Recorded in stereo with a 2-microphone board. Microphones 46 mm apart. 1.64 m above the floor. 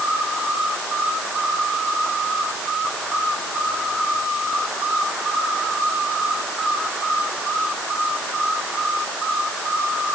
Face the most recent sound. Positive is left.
No sound to turn to.